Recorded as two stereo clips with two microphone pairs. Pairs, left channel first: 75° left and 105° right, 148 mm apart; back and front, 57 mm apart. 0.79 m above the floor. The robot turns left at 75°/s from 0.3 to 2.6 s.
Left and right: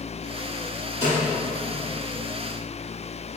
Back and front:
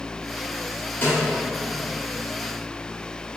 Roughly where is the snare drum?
Behind left.